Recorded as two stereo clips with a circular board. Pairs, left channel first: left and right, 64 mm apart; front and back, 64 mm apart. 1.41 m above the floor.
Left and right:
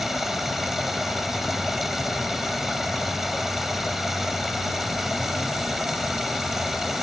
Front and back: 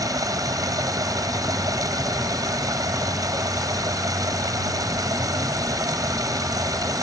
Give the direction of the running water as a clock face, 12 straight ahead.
6 o'clock.